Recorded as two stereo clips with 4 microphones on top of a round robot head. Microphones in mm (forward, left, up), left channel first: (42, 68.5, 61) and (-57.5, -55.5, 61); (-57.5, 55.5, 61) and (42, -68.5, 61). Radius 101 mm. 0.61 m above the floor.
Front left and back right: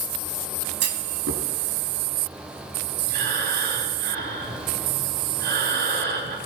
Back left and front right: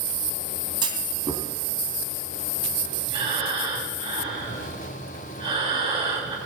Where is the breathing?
105° right, 4.5 m.